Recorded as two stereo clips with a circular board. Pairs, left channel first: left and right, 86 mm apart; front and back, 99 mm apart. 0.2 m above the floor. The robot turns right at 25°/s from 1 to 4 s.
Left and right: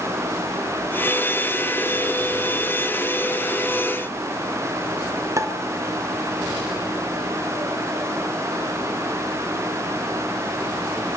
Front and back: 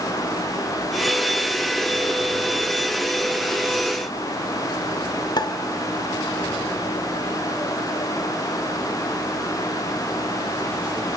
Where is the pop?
40° right, 1.4 m.